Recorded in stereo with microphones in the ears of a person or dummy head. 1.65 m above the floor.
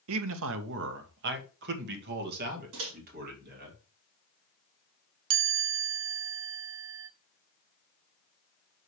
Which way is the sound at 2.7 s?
75° right (ahead or behind).